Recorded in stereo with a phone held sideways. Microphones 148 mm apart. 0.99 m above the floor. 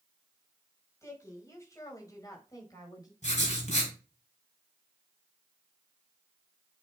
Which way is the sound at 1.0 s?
20° left (ahead or behind).